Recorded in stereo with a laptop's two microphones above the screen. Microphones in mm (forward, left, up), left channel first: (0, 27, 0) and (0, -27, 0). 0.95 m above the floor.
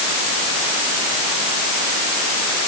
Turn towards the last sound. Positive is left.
No sound to turn to.